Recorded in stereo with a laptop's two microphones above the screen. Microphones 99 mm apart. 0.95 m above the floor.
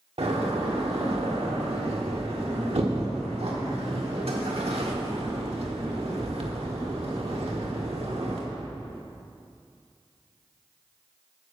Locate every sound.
0.2 s a door slam: 85° right, 1.5 m